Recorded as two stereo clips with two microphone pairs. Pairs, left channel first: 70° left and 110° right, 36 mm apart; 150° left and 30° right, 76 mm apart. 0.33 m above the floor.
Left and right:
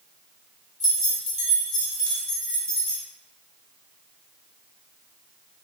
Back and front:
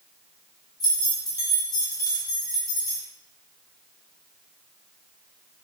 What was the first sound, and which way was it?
Keys jangling, 170° left.